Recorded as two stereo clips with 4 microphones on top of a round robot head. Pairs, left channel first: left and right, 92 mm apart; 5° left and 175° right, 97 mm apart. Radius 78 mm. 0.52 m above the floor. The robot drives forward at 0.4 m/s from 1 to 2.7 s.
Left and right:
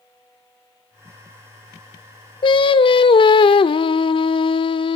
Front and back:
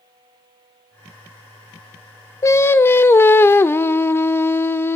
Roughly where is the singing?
Ahead left.